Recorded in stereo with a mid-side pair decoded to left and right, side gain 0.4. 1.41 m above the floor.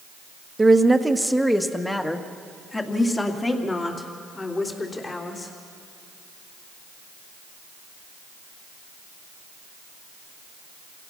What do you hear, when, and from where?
0.6 s a woman speaking: 20° right, 1.3 m; by 5.5 s 35° left, 4 m